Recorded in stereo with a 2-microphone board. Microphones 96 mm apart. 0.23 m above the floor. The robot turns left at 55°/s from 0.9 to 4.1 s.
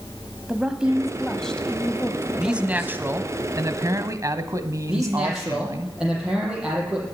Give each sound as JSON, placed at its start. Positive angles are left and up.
{"t": 0.5, "sound": "a woman speaking", "side_deg": -10, "distance_m": 1.0}
{"t": 2.4, "sound": "a man speaking", "azimuth_deg": -10, "distance_m": 1.2}
{"t": 4.9, "sound": "a man speaking", "side_deg": -5, "distance_m": 7.5}